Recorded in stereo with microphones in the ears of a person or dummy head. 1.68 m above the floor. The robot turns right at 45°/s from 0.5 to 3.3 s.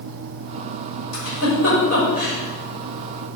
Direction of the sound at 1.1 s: 80° left.